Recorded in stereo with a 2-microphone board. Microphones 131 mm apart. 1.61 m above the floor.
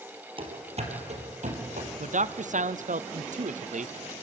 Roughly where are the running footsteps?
Right.